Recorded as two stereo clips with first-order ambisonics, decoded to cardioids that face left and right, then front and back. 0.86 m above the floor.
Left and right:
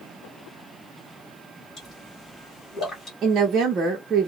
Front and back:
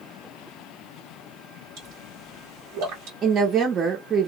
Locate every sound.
1.8 s a pop: 155° left, 1.6 m
3.2 s a woman speaking: 135° right, 0.7 m